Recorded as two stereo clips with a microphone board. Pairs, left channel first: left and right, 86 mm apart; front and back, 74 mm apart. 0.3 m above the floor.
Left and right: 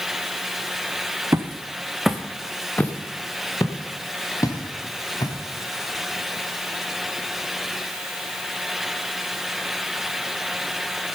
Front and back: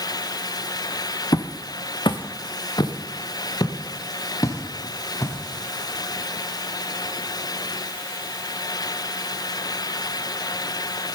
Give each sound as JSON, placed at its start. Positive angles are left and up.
{"t": 1.3, "sound": "footsteps", "azimuth_deg": -35, "distance_m": 1.3}